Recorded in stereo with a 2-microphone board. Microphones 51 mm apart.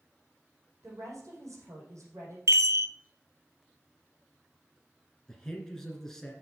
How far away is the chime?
About 0.5 m.